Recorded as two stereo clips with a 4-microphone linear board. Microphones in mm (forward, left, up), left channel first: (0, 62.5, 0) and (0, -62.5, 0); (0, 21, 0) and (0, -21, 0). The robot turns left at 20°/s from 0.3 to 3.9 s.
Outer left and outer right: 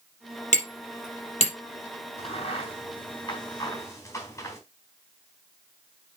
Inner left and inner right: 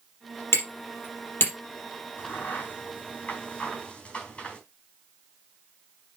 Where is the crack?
55° left (ahead or behind), 3.5 m; by 4.6 s 20° left (ahead or behind), 3.5 m.